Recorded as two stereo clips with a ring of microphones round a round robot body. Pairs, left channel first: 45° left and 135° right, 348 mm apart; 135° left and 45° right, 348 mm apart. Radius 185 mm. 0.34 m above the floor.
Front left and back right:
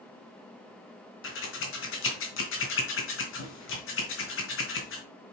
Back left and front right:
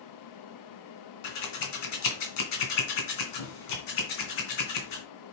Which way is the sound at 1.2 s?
100° left.